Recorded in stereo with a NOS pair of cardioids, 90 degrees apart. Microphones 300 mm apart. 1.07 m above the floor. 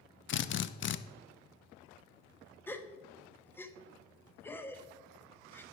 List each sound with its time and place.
0.3 s a drill: 40° left, 0.6 m
2.7 s a gasp: 5° left, 0.8 m